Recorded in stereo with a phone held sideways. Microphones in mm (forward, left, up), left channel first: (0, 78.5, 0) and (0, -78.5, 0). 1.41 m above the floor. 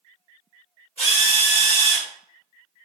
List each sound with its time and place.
1.0 s a drill: 40° left (ahead or behind), 1.9 m